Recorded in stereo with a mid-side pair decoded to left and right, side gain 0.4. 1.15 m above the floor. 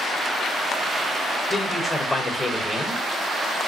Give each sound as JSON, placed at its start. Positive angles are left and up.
{"t": 1.5, "sound": "a man speaking", "azimuth_deg": 20, "distance_m": 1.7}